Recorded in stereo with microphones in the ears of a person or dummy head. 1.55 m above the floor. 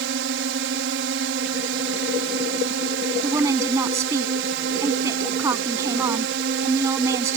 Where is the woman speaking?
15° right (ahead or behind).